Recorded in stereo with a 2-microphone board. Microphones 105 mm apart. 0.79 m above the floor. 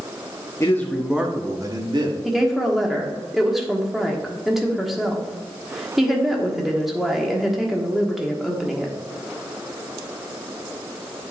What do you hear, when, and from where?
0.6 s a man speaking: 25° left (ahead or behind), 0.8 m; by 2.1 s 45° right (ahead or behind), 1.4 m
2.2 s a woman speaking: 5° right (ahead or behind), 1.3 m